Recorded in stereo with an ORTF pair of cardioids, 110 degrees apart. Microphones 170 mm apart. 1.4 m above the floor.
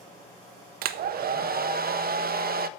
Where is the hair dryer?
65° right, 0.6 m.